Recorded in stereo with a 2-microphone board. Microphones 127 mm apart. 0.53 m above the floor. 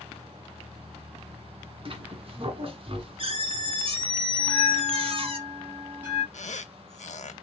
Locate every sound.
1.9 s a squeak: 50° right (ahead or behind), 1.4 m
4.4 s a bell: 20° right (ahead or behind), 1.8 m
6.3 s a squeak: 80° left, 0.5 m